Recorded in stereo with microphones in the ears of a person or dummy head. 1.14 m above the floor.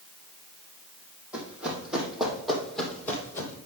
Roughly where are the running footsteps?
Centre.